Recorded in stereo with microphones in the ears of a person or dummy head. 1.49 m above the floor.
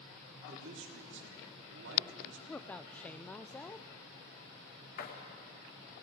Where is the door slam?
60° left (ahead or behind), 2.5 m.